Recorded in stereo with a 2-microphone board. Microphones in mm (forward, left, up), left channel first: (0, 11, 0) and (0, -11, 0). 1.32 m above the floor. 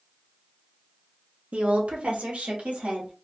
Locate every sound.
1.5 s a woman speaking: 80° right, 0.8 m; by 3.1 s 85° right, 2 m